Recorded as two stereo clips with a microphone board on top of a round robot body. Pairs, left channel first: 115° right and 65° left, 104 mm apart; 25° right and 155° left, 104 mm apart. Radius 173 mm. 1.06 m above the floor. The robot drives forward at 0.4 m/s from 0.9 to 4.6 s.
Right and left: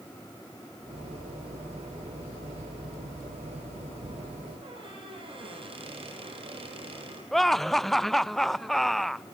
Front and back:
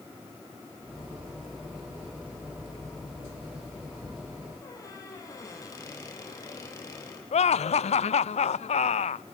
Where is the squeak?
35° left, 8 m.